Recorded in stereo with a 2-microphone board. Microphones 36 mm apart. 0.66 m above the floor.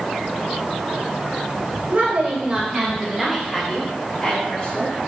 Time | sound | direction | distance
1.9 | a woman speaking | 50° right (ahead or behind) | 3 m